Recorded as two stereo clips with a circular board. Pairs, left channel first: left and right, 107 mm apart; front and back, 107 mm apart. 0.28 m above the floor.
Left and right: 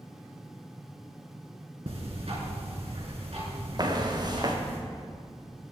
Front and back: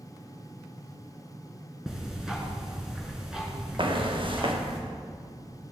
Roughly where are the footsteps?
Behind right.